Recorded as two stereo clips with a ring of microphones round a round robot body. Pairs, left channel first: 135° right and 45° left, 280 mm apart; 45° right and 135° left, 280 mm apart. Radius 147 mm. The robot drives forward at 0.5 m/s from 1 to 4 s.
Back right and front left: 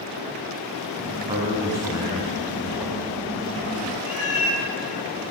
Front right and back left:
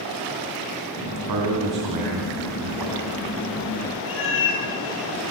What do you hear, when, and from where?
1.3 s a man speaking: 120° left, 3.5 m; by 3.1 s 130° left, 4 m
4.1 s a cat meowing: 90° right, 2.5 m